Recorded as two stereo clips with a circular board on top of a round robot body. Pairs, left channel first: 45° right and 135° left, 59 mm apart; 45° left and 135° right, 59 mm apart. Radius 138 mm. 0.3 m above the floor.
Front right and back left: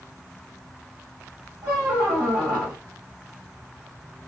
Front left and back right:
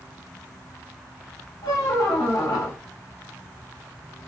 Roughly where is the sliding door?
No sliding door in this recording.